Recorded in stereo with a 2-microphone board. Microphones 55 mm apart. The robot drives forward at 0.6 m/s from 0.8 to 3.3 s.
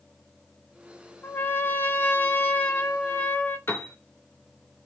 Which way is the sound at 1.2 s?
40° left (ahead or behind).